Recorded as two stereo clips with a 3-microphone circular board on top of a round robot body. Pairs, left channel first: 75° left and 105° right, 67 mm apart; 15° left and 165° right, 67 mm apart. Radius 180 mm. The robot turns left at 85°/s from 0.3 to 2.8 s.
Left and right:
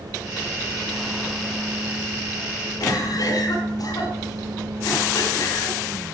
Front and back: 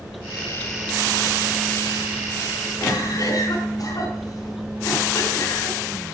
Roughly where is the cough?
Ahead left.